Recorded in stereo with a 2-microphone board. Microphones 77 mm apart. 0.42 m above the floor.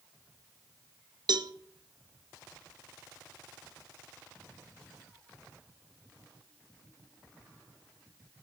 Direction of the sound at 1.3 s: 65° right (ahead or behind).